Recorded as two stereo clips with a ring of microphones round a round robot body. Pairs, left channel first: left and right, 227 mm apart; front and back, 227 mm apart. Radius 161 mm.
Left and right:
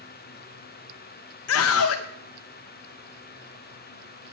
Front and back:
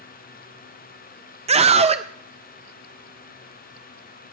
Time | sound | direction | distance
1.5 | a scream | 115° left | 0.5 m